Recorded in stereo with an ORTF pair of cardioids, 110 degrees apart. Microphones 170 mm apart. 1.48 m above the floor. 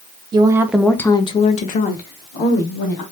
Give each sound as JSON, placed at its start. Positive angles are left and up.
{"t": 0.3, "sound": "a woman speaking", "azimuth_deg": -25, "distance_m": 0.7}